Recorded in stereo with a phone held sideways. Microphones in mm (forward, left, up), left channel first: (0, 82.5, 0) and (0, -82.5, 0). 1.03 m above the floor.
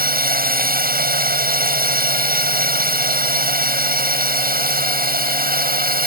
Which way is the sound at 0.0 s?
65° right (ahead or behind).